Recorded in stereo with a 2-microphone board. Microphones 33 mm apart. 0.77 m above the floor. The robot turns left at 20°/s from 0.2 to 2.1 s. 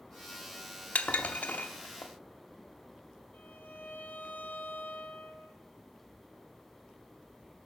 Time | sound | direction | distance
0.9 | dishes clattering | 50° left (ahead or behind) | 0.8 m
3.3 | a violin | 80° left | 1.8 m